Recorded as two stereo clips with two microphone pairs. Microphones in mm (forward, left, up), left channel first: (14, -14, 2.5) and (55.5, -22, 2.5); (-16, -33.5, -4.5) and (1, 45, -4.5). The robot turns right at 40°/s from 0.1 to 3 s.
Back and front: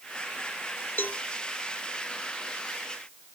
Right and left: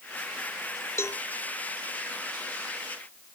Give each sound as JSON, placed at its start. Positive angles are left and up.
{"t": 1.0, "sound": "a cowbell", "azimuth_deg": -160}